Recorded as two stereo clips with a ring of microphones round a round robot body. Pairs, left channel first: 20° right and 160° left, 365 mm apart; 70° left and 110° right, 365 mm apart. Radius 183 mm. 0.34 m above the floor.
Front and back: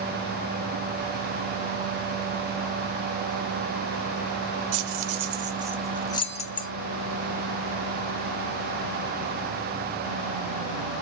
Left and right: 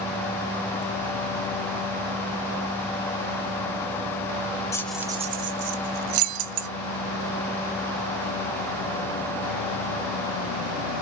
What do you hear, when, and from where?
4.7 s keys jangling: 145° left, 0.7 m; by 6.7 s 90° right, 1.0 m